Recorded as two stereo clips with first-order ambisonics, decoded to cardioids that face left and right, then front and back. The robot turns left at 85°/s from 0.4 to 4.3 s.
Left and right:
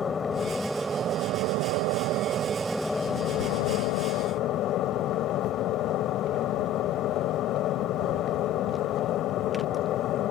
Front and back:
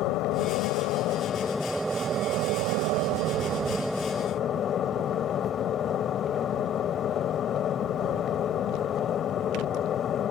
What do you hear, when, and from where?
0.0 s an aircraft: 25° left; by 10.3 s 55° left